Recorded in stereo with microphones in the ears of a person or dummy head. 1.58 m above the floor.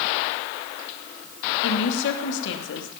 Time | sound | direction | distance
1.6 | a woman speaking | 65° left (ahead or behind) | 3 m